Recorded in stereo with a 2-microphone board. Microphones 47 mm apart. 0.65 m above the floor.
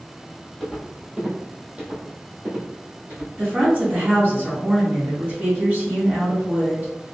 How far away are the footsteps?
About 1.2 m.